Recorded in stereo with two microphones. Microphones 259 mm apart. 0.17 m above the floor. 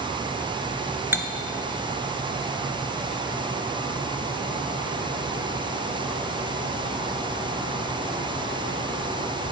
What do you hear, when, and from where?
1.1 s cutlery clinking: 10° right (ahead or behind), 1.3 m